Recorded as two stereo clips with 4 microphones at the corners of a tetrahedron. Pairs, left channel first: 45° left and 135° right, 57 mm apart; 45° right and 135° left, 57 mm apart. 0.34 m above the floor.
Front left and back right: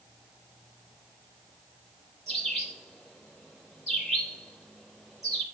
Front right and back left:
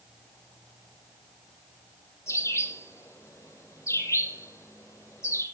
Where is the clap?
No clap in this recording.